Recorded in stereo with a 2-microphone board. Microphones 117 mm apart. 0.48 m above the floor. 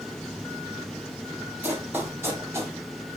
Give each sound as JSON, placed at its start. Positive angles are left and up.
{"t": 1.6, "sound": "running footsteps", "side_deg": -15, "distance_m": 3.5}